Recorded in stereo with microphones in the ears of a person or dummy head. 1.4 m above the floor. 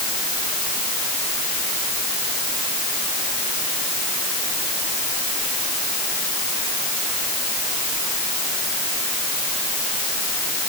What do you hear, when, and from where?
Only background noise.